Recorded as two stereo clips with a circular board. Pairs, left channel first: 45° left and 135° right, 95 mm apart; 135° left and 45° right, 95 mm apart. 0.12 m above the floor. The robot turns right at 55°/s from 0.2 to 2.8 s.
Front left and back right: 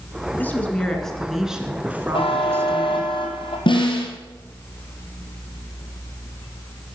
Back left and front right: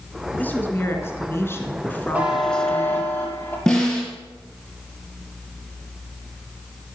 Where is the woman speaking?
85° left, 1.7 m; by 3.1 s 140° right, 1.7 m.